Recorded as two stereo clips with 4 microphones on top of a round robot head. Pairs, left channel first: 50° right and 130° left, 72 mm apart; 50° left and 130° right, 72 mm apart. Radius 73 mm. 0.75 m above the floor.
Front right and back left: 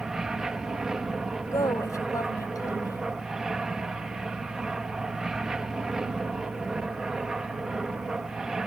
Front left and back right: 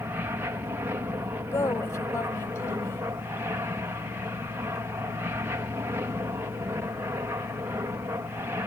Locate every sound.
0.0 s an aircraft: 150° right
1.5 s a woman speaking: 5° right